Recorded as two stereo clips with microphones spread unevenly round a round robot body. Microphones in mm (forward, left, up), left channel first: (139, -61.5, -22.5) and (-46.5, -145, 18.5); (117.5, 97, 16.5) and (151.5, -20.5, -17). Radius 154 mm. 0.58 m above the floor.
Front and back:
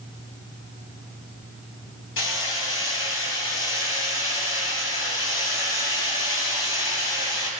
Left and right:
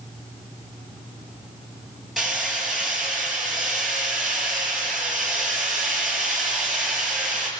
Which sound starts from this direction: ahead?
Hammering, at 2.2 s.